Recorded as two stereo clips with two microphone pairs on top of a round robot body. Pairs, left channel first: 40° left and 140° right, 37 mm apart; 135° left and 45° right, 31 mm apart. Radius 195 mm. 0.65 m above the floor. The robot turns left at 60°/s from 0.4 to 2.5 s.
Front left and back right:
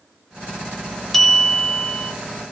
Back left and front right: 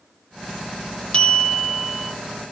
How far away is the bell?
About 0.8 m.